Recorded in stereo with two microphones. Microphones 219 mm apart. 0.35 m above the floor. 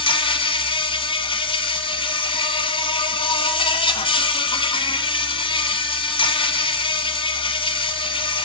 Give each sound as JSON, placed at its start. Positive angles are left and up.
{"t": 0.0, "sound": "an insect", "side_deg": 25, "distance_m": 1.2}